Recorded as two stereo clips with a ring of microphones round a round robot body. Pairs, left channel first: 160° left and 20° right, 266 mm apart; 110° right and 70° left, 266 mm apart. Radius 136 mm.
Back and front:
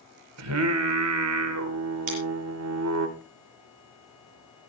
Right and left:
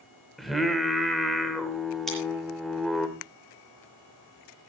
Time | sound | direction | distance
0.4 | singing | 25° right | 1.8 m
2.1 | scissors | 25° right | 8 m